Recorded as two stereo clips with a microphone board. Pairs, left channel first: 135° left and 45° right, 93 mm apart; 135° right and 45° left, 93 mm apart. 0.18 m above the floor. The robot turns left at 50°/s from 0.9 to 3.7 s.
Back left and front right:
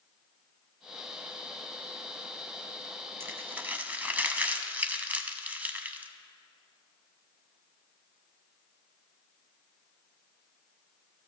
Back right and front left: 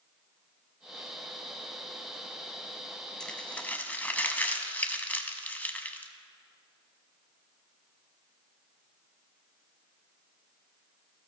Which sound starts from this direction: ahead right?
Crumpling, at 3.2 s.